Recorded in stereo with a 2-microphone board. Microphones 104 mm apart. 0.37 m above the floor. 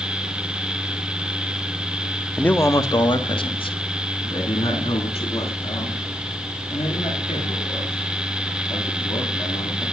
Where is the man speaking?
10° left (ahead or behind), 0.9 m; by 9.8 s 80° left, 9.5 m.